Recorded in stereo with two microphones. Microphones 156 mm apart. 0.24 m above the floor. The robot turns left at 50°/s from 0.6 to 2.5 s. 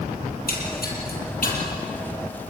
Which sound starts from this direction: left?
A splash, at 0.3 s.